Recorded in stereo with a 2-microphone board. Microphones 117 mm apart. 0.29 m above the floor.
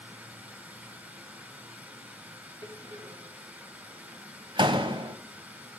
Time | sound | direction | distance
0.0 | running water | 15° right (ahead or behind) | 2.0 m
2.6 | a door slam | 45° right (ahead or behind) | 0.9 m